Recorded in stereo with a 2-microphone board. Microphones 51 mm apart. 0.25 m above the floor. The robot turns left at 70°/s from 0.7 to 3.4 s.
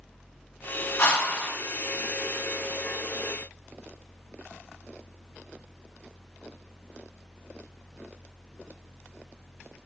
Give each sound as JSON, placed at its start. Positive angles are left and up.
{"t": 1.0, "sound": "a whoosh", "azimuth_deg": 75, "distance_m": 1.6}